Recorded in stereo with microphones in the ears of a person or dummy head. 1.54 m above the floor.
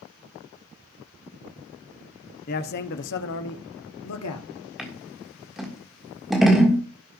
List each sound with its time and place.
2.5 s a man speaking: 40° left (ahead or behind), 1.0 m; by 4.5 s 80° left, 1.6 m
4.8 s scissors: 5° right (ahead or behind), 1.6 m